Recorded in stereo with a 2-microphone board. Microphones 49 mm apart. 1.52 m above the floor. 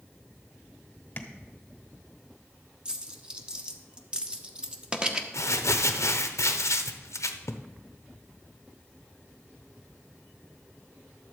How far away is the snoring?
No snoring in this recording.